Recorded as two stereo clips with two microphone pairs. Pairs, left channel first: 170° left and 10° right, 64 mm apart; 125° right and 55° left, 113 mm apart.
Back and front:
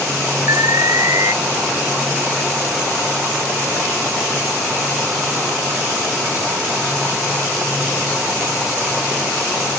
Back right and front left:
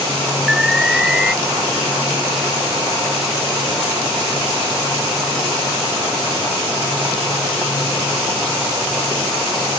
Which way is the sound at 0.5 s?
30° right.